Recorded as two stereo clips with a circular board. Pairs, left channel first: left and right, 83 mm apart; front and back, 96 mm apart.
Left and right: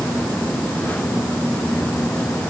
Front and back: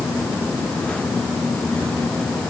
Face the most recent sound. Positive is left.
No sound to turn to.